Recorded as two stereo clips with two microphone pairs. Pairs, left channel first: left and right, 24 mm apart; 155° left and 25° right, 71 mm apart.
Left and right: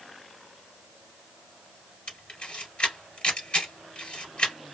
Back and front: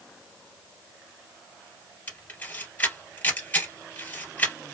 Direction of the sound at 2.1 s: 100° left.